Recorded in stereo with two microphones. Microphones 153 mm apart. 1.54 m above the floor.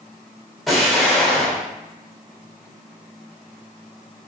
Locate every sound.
0.7 s an explosion: centre (ahead or behind), 1.0 m